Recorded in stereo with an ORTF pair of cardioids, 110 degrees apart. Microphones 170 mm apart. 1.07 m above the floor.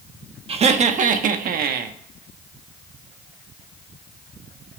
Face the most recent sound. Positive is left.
turn(degrees=-70)